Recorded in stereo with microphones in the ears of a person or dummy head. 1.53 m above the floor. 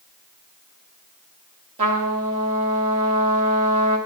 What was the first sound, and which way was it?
A trumpet, 30° right (ahead or behind).